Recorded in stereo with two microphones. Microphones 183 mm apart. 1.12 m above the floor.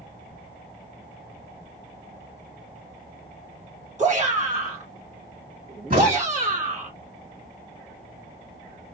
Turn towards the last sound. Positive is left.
turn(degrees=-55)  # may be behind; listen again after turning